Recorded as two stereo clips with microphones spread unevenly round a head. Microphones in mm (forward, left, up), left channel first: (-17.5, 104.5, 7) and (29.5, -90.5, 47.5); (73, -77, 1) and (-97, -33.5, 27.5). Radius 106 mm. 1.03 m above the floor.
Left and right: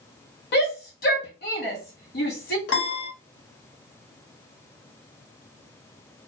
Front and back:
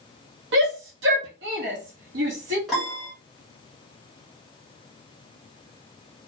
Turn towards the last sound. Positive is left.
turn(degrees=75)